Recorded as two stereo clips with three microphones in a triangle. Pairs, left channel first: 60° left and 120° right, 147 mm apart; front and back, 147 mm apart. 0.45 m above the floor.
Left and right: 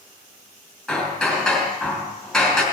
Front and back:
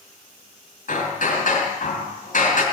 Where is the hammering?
30° right, 3 m.